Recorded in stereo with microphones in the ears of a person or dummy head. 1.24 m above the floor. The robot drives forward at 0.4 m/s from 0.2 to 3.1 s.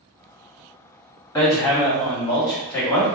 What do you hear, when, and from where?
1.4 s hammering: 15° left (ahead or behind), 1.9 m; by 3.1 s 10° left (ahead or behind), 2.5 m